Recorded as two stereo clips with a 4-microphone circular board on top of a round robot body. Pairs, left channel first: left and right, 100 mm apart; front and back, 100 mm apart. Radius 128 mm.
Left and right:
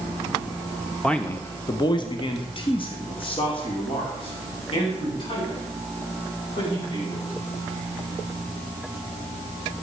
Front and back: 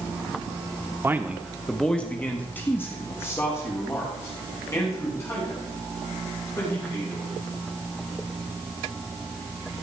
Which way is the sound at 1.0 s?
165° left.